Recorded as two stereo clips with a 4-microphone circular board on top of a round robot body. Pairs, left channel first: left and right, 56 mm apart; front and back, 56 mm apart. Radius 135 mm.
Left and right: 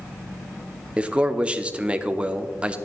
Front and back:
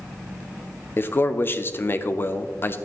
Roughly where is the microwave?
No microwave in this recording.